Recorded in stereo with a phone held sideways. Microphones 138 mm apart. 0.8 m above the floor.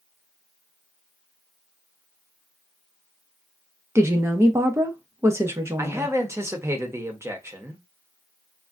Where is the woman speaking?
20° right (ahead or behind), 0.6 m.